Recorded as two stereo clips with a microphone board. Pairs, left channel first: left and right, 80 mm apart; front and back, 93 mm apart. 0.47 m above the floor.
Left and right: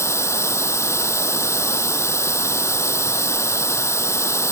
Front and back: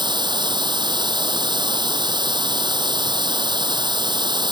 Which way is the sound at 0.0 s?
145° left.